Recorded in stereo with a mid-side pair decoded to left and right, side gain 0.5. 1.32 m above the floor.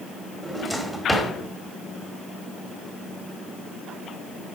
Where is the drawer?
5° right, 1.9 m.